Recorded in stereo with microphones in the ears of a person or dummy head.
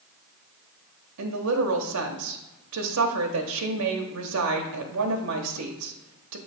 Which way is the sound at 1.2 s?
80° right.